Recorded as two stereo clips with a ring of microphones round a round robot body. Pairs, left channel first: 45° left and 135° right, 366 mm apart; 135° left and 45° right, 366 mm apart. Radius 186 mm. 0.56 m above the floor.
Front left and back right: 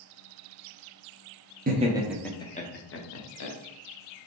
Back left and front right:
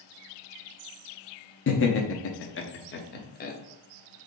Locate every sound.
1.7 s laughter: 170° left, 0.7 m; by 3.5 s 70° left, 1.0 m